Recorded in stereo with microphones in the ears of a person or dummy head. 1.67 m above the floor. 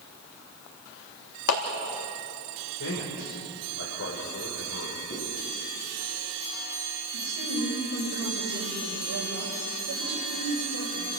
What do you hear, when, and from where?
1.5 s a clap: 80° left, 3 m
2.8 s a man speaking: 75° left (ahead or behind), 5.5 m
5.1 s a zipper: 35° left (ahead or behind), 9 m
7.1 s a woman speaking: 75° right (ahead or behind), 6.5 m